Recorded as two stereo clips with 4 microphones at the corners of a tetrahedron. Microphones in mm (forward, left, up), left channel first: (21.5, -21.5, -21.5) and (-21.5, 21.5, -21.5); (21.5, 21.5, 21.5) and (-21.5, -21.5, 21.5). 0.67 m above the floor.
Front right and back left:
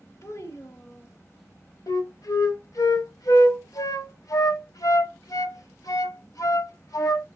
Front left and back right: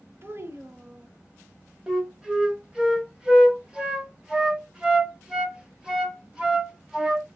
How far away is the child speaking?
About 1.0 m.